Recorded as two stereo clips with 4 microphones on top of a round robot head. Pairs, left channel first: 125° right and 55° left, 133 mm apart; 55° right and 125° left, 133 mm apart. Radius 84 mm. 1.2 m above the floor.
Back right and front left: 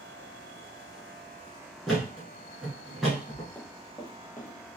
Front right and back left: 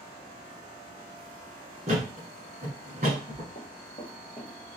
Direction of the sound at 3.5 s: 50° right.